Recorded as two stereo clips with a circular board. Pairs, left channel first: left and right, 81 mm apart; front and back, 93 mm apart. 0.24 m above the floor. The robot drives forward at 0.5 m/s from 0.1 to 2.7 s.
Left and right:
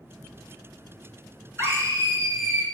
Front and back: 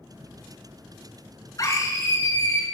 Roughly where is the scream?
Ahead right.